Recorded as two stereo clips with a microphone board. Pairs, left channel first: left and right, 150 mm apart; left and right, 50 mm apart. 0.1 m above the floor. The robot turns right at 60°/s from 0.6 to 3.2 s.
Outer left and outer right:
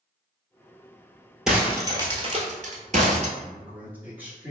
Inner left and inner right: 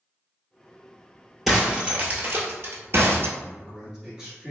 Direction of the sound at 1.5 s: 5° right (ahead or behind).